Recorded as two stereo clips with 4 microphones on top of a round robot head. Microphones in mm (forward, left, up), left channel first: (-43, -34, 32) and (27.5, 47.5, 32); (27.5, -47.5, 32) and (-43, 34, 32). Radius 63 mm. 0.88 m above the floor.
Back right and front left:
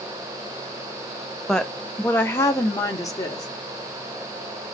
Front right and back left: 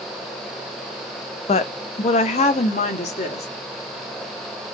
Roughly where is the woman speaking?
Ahead right.